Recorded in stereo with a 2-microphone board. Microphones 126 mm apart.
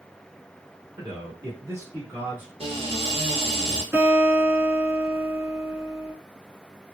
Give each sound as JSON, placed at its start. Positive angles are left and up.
{"t": 1.0, "sound": "a man speaking", "side_deg": -35, "distance_m": 1.4}
{"t": 2.6, "sound": "a cupboard door", "side_deg": -50, "distance_m": 1.2}
{"t": 3.9, "sound": "a guitar", "side_deg": -20, "distance_m": 1.5}